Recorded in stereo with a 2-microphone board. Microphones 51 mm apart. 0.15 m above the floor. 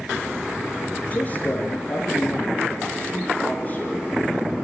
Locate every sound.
1.1 s a man speaking: 30° left (ahead or behind), 3 m